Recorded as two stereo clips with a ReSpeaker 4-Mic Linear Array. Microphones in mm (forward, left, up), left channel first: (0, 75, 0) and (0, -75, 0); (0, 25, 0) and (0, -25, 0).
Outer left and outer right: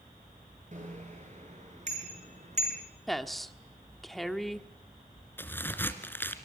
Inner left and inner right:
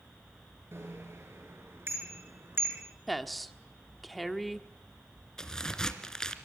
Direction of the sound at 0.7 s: 55° right (ahead or behind).